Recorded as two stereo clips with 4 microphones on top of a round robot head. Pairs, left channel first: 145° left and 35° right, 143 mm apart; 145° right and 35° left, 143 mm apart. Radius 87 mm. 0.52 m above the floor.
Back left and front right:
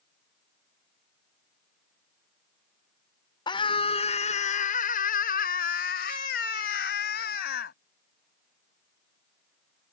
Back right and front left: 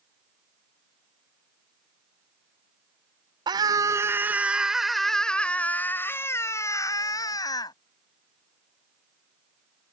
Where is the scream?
90° left; by 7.7 s 155° left.